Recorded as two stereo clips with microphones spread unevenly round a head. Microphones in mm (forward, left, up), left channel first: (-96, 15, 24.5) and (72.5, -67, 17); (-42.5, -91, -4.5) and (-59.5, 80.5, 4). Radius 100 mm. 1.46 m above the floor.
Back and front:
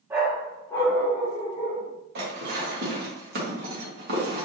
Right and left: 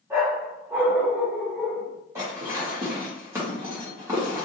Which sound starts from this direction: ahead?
Dishes clattering, at 2.1 s.